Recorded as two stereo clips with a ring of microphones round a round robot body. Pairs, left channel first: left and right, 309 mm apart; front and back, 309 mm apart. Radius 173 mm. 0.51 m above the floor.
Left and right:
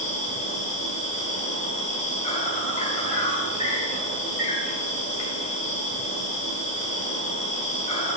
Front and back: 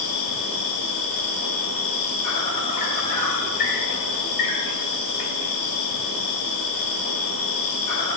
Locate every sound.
0.0 s an insect: 25° left, 1.5 m